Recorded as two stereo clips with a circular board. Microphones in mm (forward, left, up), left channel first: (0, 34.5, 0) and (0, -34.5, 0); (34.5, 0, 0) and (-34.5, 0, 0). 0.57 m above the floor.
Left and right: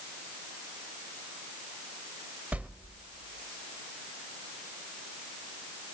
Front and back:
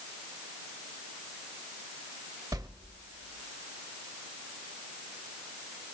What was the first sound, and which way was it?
A whoosh, 155° right.